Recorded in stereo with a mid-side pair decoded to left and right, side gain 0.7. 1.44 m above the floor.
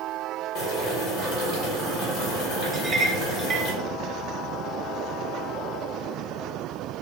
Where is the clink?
25° right, 0.9 m.